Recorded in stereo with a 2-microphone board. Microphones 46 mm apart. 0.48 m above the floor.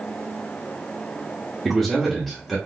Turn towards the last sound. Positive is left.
turn(degrees=0)  # may be behind; listen again after turning